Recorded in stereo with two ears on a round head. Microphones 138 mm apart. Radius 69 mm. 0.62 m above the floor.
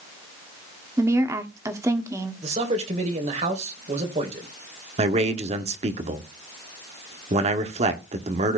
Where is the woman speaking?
20° right (ahead or behind), 1.4 m.